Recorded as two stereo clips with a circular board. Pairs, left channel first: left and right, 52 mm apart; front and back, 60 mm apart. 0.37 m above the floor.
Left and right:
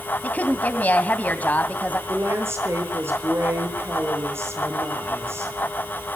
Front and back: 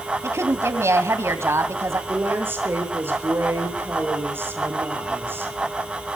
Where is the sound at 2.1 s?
130° right, 7.5 m.